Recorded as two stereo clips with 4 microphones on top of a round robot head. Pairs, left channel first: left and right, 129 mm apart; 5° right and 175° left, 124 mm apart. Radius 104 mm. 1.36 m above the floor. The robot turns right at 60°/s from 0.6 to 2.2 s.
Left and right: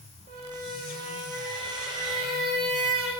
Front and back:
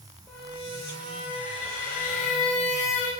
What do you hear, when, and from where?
0.3 s a squeak: 95° right, 0.6 m; by 3.1 s straight ahead, 0.6 m